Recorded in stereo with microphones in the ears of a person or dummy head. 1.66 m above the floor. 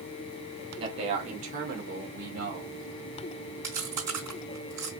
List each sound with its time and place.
0.8 s a man speaking: 25° right (ahead or behind), 1.0 m; by 2.8 s 60° right (ahead or behind), 1.9 m
3.6 s chewing: 20° right (ahead or behind), 2.5 m